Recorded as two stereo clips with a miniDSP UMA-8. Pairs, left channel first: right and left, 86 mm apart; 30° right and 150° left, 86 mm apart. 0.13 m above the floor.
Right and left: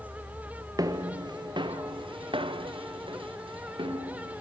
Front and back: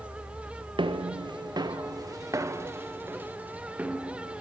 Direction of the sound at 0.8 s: 135° left.